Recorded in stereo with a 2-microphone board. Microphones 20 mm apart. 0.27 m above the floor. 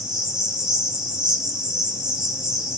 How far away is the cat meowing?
I don't hear a cat meowing.